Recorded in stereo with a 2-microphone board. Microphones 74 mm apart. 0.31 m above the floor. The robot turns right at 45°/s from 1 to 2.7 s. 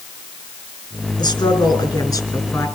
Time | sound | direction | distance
1.2 | a woman speaking | 70° left | 4.5 m